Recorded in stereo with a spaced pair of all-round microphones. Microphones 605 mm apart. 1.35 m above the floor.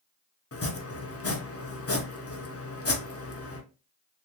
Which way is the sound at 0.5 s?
25° left (ahead or behind).